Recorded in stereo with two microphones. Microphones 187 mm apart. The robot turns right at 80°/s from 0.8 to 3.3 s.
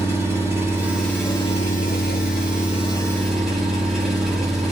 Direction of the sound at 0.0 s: 15° right.